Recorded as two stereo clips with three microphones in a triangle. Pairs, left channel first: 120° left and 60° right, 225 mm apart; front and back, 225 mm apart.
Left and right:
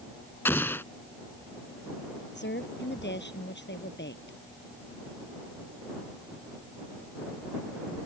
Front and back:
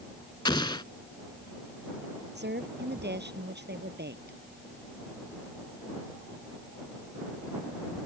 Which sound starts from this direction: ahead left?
An explosion, at 0.5 s.